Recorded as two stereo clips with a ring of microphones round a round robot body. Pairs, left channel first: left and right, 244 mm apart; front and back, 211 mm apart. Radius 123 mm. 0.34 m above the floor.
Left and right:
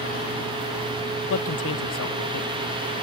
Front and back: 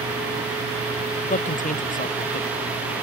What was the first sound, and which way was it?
A man speaking, 50° left.